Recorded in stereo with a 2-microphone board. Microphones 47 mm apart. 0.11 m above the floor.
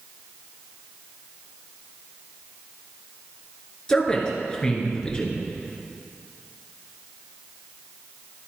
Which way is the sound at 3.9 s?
15° left (ahead or behind).